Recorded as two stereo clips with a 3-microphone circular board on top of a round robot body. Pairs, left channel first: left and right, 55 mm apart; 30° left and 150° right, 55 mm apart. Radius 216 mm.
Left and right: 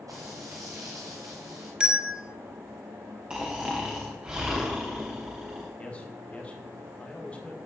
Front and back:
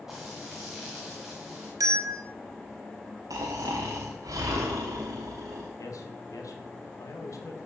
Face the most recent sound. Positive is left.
turn(degrees=25)